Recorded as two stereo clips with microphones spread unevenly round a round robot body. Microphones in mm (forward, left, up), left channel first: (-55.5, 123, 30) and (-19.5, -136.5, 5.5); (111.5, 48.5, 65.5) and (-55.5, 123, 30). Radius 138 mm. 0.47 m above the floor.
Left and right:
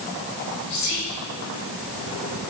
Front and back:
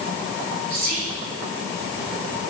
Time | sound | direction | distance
0.7 | whispering | 140° left | 1.0 m